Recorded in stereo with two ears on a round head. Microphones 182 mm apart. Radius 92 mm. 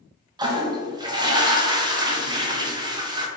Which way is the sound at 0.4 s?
20° right (ahead or behind).